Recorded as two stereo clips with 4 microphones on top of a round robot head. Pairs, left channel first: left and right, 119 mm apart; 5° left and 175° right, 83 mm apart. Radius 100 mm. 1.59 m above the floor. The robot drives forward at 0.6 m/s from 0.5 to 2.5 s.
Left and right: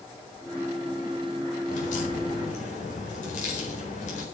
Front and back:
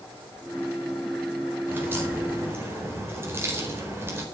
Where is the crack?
120° left, 4 m; by 4.2 s 125° left, 4.5 m.